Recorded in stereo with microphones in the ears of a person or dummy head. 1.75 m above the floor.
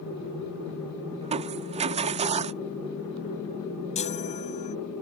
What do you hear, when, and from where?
1.2 s crushing: 35° right (ahead or behind)
4.0 s a chime: 35° left (ahead or behind)